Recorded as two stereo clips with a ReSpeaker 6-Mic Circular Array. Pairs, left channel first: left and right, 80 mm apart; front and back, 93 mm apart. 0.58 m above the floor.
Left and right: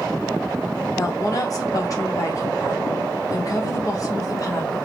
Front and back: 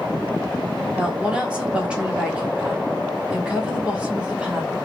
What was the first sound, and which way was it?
A woman speaking, 105° left.